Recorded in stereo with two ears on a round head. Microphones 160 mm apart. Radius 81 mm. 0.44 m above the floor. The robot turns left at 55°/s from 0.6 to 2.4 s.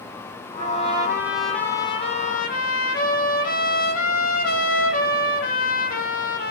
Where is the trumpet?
135° right, 4 m; by 6.5 s 125° left, 4 m.